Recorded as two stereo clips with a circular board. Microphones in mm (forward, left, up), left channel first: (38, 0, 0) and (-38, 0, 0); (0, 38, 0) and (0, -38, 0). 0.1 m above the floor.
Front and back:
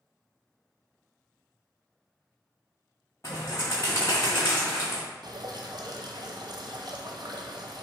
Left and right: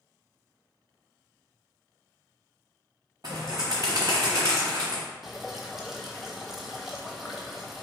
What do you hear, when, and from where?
3.2 s a bird: 50° right, 1.3 m
5.2 s dripping: 175° right, 0.7 m